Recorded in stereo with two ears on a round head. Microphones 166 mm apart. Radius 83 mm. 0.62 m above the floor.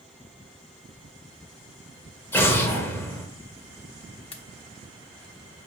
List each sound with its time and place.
2.3 s an explosion: 10° left (ahead or behind), 1.1 m
4.3 s a pop: 30° left (ahead or behind), 0.9 m